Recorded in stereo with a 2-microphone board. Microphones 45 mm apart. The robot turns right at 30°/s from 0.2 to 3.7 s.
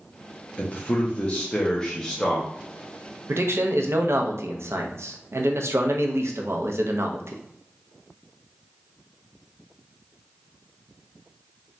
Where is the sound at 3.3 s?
75° right (ahead or behind), 0.5 m; by 7.4 s 80° right, 0.5 m.